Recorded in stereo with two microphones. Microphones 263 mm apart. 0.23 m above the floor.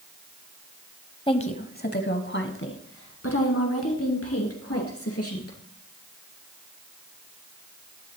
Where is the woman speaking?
20° left (ahead or behind), 1.0 m; by 5.6 s 60° left (ahead or behind), 3.5 m.